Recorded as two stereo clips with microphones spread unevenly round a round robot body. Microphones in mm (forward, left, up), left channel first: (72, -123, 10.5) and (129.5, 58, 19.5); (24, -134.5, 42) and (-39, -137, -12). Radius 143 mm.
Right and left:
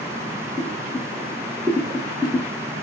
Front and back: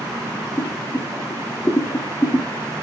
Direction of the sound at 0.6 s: 150° left.